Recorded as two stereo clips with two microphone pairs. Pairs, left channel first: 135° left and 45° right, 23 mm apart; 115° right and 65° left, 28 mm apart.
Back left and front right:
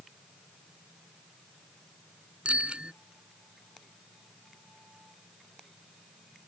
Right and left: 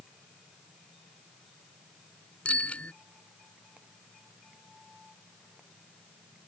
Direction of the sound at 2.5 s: 80° right.